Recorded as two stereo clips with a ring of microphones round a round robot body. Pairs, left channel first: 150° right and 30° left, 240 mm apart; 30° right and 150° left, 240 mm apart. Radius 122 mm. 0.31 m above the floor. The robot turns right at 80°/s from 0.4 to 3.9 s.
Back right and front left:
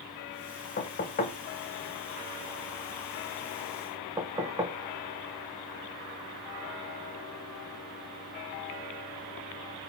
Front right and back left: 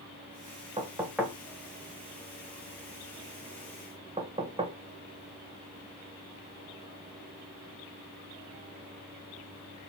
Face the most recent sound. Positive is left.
turn(degrees=95)